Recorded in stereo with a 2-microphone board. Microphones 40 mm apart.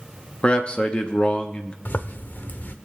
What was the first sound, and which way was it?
A man speaking, 30° left (ahead or behind).